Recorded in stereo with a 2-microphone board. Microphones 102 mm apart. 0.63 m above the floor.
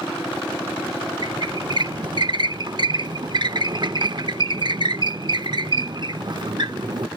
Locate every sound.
1.2 s a squeak: 50° right (ahead or behind)